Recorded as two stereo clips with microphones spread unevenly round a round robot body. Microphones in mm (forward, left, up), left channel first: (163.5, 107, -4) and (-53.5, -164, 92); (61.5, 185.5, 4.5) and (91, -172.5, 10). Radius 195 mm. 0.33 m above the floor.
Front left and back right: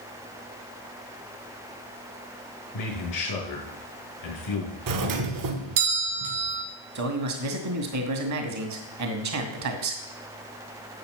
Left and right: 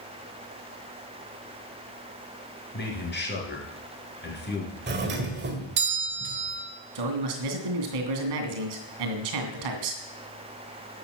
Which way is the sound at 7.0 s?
85° right.